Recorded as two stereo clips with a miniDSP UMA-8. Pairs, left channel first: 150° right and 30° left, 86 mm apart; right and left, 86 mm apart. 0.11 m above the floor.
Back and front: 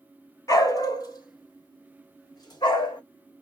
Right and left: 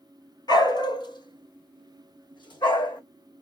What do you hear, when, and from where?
0.5 s a dog barking: 110° right, 1.1 m; by 3.0 s 115° right, 3 m